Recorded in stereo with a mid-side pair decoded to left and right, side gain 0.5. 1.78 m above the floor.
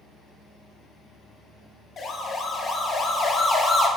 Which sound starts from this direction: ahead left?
A siren, at 2.0 s.